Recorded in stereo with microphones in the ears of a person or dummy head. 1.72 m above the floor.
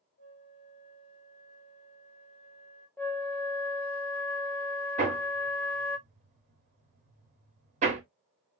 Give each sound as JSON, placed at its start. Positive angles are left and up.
{"t": 0.2, "sound": "a flute", "side_deg": 35, "distance_m": 1.6}
{"t": 3.0, "sound": "a flute", "side_deg": 10, "distance_m": 0.6}
{"t": 5.0, "sound": "hammering", "side_deg": -35, "distance_m": 1.5}